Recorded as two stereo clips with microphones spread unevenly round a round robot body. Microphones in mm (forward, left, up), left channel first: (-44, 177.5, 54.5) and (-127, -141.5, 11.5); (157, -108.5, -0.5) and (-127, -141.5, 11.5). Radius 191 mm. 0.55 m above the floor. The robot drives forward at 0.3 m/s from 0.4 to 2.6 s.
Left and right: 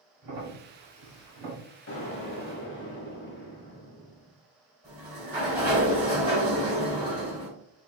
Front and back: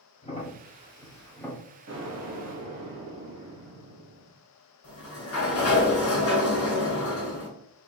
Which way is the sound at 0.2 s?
65° right.